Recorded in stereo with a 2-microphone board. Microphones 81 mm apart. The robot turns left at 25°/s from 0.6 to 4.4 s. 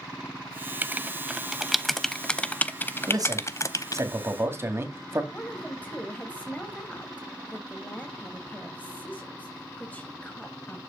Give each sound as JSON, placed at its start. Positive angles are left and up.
{"t": 0.8, "sound": "writing", "side_deg": -20, "distance_m": 0.7}
{"t": 3.1, "sound": "a man speaking", "azimuth_deg": -110, "distance_m": 2.0}
{"t": 5.3, "sound": "a woman speaking", "side_deg": 20, "distance_m": 1.5}